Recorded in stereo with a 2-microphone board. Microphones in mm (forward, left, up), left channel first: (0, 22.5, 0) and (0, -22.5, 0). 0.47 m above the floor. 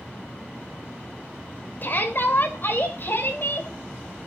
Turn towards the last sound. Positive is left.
turn(degrees=55)  # may be behind; listen again after turning